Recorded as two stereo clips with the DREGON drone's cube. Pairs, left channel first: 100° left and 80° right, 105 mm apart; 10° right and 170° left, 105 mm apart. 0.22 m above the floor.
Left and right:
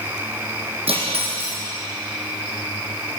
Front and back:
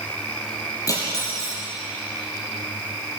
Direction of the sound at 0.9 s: 65° right.